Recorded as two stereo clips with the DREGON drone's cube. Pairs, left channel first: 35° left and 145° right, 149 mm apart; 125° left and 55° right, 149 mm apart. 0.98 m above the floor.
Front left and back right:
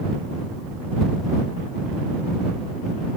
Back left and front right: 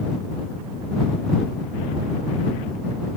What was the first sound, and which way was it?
Only background noise.